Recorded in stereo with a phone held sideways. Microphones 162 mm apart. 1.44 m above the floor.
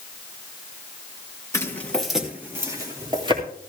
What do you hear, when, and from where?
1.5 s footsteps: 20° left (ahead or behind), 2 m; by 3.4 s 35° right (ahead or behind), 3.5 m